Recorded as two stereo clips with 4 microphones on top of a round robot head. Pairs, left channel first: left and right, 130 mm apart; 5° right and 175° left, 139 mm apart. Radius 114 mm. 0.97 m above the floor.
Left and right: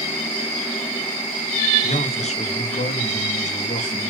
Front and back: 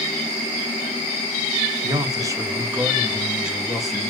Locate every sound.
1.8 s a man speaking: 120° left, 1.7 m; by 4.1 s 80° left, 2.5 m